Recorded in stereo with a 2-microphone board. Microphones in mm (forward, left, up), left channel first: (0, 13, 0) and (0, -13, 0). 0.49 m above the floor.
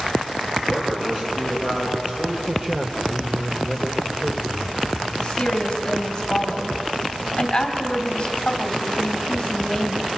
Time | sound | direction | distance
0.7 | a man speaking | 20° right (ahead or behind) | 7 m
2.5 | a man speaking | 20° right (ahead or behind) | 1.4 m
5.2 | a woman speaking | 25° left (ahead or behind) | 2.5 m